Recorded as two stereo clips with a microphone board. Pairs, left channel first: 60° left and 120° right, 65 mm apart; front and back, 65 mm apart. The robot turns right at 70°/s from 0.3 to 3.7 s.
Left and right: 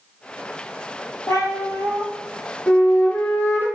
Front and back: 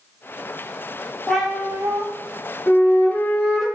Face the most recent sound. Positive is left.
turn(degrees=90)